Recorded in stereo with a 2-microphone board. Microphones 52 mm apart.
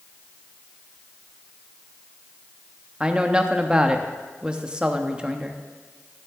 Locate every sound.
3.0 s a woman speaking: 15° right (ahead or behind), 0.8 m